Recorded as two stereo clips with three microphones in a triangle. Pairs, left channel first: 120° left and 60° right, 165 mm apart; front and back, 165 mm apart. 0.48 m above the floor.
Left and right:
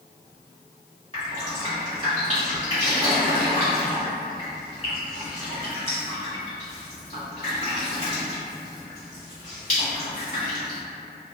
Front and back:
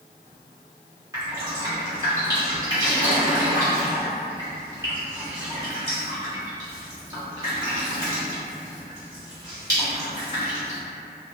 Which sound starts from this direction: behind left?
Dripping, at 1.1 s.